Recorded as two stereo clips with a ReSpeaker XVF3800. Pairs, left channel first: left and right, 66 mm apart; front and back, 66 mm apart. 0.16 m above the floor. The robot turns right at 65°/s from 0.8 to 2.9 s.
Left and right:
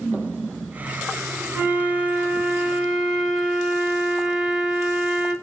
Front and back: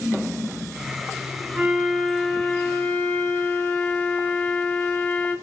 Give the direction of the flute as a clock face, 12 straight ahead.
4 o'clock.